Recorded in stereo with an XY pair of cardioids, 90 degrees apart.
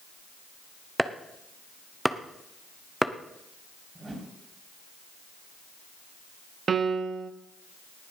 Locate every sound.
1.0 s chopping: 5° right, 1.0 m
4.0 s a whoosh: 20° right, 4 m
6.7 s a piano: 50° right, 1.0 m